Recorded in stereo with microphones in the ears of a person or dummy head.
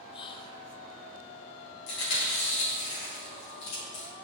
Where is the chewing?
70° left (ahead or behind), 3 m.